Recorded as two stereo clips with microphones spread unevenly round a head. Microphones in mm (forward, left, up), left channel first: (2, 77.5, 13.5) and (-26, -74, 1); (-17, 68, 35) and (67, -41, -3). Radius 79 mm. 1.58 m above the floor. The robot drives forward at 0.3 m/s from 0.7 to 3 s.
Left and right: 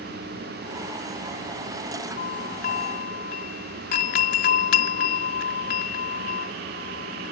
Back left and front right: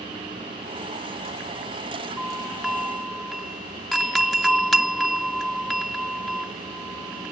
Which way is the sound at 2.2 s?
35° left.